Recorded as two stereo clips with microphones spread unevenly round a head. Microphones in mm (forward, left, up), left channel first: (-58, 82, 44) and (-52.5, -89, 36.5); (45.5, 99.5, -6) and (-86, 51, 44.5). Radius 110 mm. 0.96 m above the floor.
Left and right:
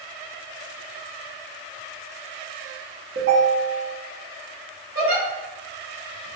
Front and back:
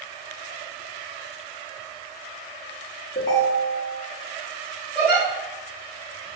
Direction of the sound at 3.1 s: 40° right.